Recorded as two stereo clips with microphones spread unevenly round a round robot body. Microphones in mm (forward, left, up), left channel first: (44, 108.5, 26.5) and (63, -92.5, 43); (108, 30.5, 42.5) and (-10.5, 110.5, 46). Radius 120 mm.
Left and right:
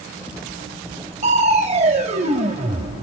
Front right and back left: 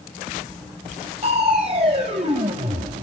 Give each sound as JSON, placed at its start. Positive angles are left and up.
{"t": 1.2, "sound": "crushing", "azimuth_deg": -150, "distance_m": 0.7}